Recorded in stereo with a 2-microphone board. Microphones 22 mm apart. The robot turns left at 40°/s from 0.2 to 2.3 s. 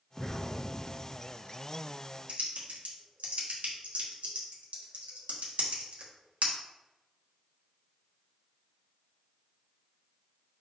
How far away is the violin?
No violin in this recording.